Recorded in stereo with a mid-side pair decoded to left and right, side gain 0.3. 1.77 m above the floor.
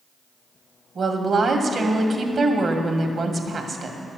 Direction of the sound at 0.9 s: 65° right.